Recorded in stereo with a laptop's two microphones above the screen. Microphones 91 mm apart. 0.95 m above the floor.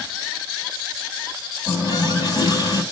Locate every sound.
1.7 s a running tap: 45° left (ahead or behind), 4.5 m